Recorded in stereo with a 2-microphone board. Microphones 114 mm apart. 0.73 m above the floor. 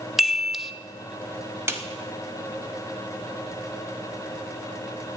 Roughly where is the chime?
Centre.